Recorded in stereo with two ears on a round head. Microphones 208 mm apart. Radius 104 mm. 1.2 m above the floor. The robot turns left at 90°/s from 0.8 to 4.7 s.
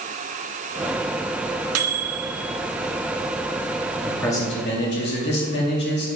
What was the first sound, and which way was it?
A microwave, 80° right.